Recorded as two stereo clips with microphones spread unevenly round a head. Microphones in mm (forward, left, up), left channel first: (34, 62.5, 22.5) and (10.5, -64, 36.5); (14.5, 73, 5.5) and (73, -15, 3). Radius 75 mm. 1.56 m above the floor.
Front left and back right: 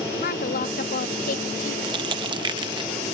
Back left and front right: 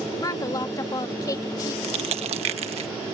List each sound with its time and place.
0.2 s a woman speaking: 70° left
1.8 s crushing: 60° right